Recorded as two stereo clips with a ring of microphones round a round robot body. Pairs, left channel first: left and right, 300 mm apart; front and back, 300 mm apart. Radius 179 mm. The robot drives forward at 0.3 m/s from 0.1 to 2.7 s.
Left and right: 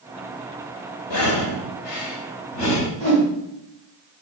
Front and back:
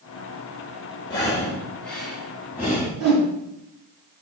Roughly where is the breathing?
Left.